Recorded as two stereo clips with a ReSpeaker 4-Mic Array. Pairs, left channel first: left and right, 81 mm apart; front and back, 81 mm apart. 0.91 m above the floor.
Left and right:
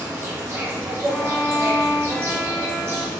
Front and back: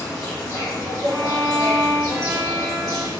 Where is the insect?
35° right, 1.3 m.